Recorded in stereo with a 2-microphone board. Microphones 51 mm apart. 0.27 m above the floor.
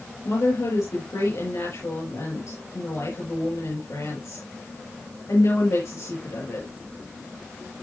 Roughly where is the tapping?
I don't hear tapping.